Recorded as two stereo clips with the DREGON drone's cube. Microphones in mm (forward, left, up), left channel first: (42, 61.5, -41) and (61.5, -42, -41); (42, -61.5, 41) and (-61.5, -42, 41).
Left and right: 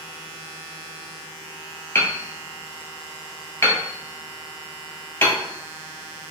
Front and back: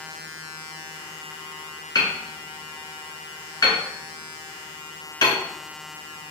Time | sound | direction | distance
1.9 | hammering | 40° left | 1.3 m